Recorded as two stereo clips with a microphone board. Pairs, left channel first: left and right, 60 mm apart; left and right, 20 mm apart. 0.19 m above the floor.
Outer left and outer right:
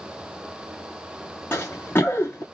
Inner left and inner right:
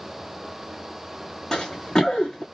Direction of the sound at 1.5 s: 35° left (ahead or behind).